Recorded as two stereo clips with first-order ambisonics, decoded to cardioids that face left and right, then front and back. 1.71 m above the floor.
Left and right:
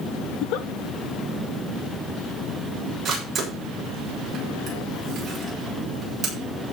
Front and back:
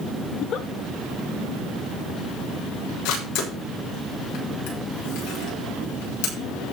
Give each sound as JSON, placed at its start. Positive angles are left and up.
{"t": 0.3, "sound": "a giggle", "azimuth_deg": 55, "distance_m": 1.0}
{"t": 3.0, "sound": "a camera shutter", "azimuth_deg": -20, "distance_m": 7.0}